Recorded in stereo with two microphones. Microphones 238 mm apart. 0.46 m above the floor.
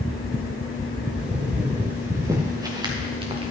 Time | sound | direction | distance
1.1 | footsteps | 5° right (ahead or behind) | 4 m